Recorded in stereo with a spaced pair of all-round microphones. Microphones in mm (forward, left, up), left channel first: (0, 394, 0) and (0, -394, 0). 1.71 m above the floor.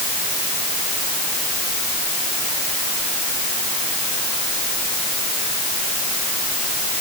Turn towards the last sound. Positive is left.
No sound to turn to.